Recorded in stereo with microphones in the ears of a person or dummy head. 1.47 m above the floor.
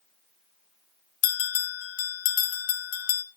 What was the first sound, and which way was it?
A bell, 60° left (ahead or behind).